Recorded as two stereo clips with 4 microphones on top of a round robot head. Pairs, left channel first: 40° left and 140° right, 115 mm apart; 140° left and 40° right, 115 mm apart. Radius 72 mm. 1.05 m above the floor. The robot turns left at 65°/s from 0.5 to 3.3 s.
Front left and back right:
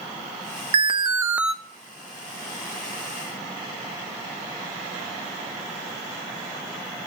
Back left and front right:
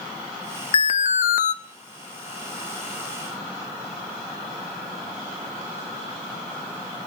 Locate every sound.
0.7 s an alarm: 175° right, 0.7 m; by 1.5 s 130° left, 0.7 m